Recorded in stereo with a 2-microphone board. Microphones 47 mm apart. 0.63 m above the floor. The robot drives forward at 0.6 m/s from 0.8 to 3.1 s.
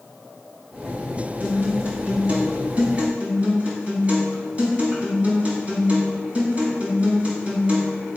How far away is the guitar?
About 3 m.